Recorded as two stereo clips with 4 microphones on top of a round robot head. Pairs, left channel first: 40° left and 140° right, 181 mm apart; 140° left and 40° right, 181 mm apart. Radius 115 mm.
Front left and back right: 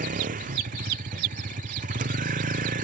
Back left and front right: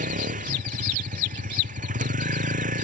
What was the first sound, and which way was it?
A vehicle, 90° right.